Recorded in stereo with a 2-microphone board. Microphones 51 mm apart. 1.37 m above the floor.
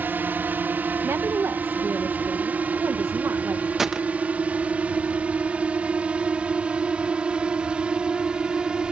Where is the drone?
40° right (ahead or behind); by 8.9 s 20° right (ahead or behind).